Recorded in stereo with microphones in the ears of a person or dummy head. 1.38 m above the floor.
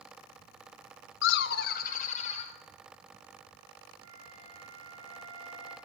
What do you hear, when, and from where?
1.2 s laughter: 75° left (ahead or behind), 0.6 m; by 2.5 s 45° left (ahead or behind), 1.5 m
4.0 s a flute: 80° right, 5.5 m